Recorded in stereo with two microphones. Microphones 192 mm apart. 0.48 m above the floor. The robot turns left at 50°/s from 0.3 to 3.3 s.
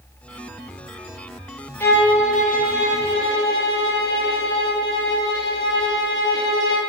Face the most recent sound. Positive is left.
turn(degrees=95)